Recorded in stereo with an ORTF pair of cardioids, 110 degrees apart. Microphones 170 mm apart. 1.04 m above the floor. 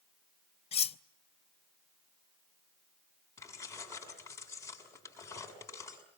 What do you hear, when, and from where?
0.7 s cutlery clinking: 35° left, 0.6 m
3.4 s keys jangling: 15° left, 6.5 m